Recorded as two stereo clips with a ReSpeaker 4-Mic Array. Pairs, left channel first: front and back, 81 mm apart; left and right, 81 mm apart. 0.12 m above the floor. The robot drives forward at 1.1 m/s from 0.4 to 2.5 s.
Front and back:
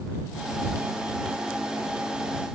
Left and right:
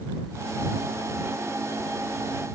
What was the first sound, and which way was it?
Only background noise.